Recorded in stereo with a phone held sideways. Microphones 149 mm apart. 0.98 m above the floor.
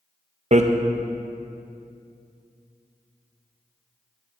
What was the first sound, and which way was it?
Hammering, 50° right (ahead or behind).